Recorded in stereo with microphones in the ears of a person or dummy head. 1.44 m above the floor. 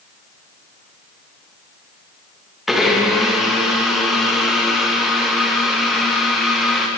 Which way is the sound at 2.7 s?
5° left (ahead or behind).